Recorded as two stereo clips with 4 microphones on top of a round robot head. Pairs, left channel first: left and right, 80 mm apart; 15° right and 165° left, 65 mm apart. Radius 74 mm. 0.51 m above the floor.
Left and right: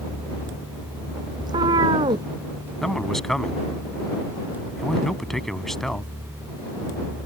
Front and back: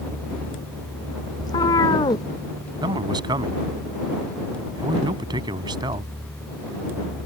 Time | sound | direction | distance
1.4 | a cat meowing | 50° right | ?
2.8 | a man speaking | straight behind | ?